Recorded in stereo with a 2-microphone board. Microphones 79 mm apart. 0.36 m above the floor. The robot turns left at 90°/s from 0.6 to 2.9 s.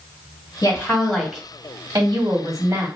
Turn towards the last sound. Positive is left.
turn(degrees=-150)